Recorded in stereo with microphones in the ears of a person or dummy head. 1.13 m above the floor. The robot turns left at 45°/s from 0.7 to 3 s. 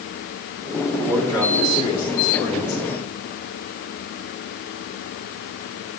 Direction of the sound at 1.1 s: 165° right.